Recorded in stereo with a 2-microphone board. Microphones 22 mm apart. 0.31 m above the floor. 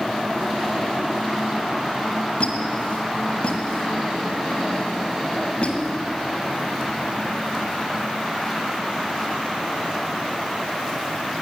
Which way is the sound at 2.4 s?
55° left (ahead or behind).